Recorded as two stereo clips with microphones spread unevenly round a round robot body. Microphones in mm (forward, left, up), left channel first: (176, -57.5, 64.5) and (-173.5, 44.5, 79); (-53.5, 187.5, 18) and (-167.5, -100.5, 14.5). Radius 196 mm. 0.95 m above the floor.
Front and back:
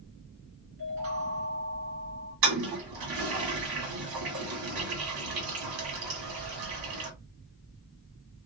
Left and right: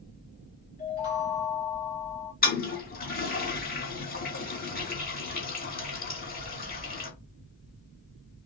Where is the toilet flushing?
130° left, 2 m.